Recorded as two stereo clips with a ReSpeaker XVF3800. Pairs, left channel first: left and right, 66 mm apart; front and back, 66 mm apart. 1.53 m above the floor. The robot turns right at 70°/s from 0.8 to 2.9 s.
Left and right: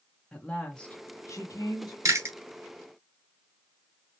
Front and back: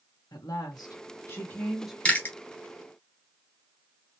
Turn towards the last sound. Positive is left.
turn(degrees=-10)